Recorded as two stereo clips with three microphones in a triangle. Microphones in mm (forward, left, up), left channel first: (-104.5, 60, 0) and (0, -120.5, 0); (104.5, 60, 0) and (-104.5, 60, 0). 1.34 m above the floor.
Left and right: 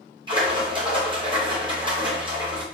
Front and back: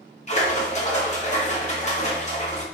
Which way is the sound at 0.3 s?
15° right.